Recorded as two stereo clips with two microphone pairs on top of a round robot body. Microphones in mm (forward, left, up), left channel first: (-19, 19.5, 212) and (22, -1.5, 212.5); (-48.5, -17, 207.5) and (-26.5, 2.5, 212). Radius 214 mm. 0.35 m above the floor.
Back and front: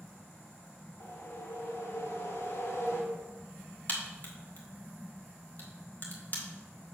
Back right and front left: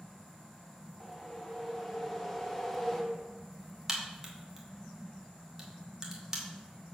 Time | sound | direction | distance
1.0 | a whoosh | 145° left | 1.8 m
3.9 | a crack | 115° left | 2.5 m